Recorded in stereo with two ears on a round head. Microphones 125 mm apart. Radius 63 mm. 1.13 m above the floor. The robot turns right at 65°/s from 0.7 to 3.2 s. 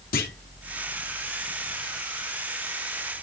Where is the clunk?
70° left (ahead or behind), 2.5 m.